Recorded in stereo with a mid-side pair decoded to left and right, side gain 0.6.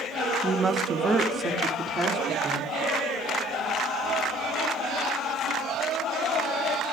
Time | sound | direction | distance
0.4 | a woman speaking | 10° right | 1.3 m